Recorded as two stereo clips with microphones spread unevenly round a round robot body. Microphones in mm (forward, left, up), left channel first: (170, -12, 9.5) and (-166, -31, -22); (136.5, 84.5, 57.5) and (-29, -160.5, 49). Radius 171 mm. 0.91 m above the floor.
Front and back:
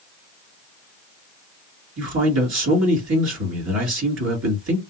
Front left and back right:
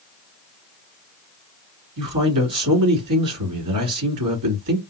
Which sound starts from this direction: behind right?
A man speaking, at 2.0 s.